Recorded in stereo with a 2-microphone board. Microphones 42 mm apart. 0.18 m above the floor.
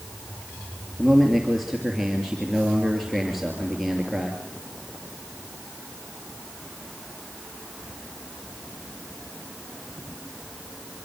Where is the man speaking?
5° right (ahead or behind), 3 m.